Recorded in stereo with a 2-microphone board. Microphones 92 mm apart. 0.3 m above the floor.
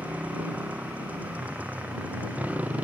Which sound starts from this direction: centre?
A motorcycle, at 0.0 s.